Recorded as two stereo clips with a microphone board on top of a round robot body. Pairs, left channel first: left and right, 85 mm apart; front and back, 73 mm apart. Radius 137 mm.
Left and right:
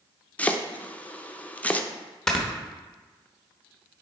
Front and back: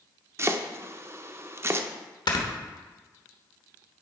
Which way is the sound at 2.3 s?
5° left.